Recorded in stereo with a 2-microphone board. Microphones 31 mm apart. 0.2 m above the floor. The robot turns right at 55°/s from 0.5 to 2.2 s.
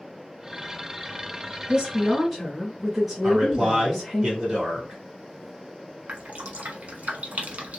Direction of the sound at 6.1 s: 50° right (ahead or behind).